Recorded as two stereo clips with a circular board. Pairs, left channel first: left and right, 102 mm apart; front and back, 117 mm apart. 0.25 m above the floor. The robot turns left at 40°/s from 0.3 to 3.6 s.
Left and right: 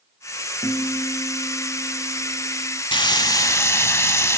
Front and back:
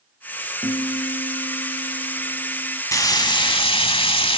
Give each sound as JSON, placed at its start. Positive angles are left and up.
{"t": 0.6, "sound": "a guitar", "azimuth_deg": 55, "distance_m": 3.5}
{"t": 2.9, "sound": "frying", "azimuth_deg": 55, "distance_m": 0.6}